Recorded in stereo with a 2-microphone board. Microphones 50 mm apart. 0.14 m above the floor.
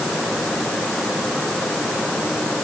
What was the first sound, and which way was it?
Only background noise.